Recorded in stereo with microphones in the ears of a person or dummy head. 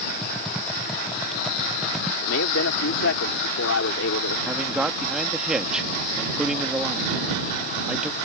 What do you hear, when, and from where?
0.2 s typing on a keyboard: 5° right (ahead or behind)
2.2 s a man speaking: 65° left (ahead or behind)
4.5 s a man speaking: 10° right (ahead or behind)